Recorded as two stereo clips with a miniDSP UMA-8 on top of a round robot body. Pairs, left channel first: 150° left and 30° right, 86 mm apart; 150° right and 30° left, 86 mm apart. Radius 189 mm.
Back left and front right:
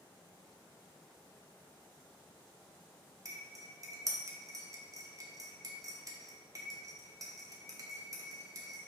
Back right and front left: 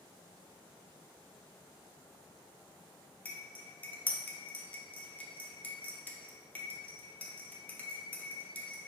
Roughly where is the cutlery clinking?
Right.